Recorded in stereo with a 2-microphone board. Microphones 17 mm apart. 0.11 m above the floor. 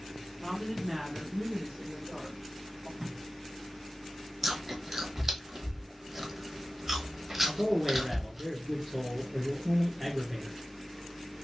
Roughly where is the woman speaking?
Centre.